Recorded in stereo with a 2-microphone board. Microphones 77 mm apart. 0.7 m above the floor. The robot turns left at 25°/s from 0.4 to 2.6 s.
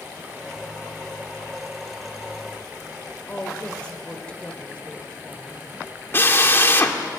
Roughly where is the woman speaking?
Centre.